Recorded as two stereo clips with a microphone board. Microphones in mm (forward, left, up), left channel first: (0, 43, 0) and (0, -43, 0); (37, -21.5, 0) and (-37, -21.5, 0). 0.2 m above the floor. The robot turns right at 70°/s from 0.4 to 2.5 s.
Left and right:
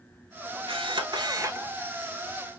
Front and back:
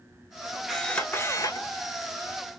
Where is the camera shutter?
90° right, 0.8 m; by 1.7 s 25° right, 0.8 m.